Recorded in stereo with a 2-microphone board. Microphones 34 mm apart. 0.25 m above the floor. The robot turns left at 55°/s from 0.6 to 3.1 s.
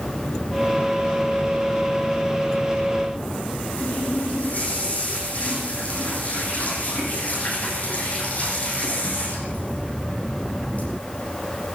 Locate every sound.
3.8 s a running tap: 45° left (ahead or behind), 7.5 m